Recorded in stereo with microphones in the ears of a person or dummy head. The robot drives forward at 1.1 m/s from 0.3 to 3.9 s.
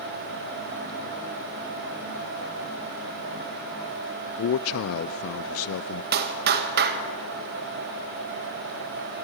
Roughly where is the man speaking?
Left.